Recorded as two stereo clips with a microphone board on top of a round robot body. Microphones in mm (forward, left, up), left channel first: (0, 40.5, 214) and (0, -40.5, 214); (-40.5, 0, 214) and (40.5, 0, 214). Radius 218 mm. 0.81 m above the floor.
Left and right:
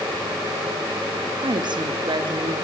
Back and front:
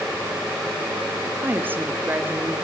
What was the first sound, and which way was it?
A woman speaking, 65° right.